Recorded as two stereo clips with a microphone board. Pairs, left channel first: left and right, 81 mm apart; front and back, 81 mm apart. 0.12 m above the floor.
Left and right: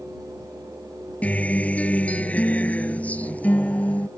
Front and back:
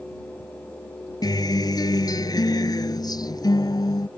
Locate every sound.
1.2 s a guitar: 20° left